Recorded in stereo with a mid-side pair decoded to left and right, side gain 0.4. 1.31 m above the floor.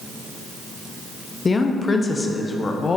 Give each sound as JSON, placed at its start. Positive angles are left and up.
{"t": 1.4, "sound": "a woman speaking", "azimuth_deg": 35, "distance_m": 0.5}